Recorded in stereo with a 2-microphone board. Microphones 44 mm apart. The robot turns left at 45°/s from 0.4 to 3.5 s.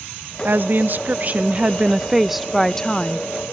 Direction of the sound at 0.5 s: 90° right.